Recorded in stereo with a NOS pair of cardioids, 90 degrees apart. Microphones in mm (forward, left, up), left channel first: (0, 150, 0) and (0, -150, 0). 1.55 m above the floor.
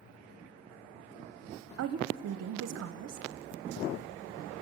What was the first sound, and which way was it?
A woman speaking, 60° right.